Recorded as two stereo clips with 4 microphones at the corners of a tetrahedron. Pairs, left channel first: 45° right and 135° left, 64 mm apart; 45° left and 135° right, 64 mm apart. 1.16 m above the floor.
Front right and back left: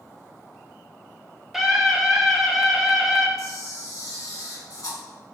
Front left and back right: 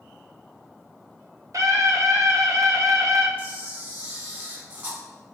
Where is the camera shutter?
80° right, 1.3 m.